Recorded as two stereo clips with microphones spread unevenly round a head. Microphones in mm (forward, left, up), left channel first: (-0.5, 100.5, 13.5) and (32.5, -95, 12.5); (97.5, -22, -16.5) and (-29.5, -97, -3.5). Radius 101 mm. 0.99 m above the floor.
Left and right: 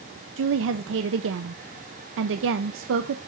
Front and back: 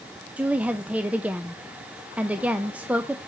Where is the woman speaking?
65° right, 0.6 m.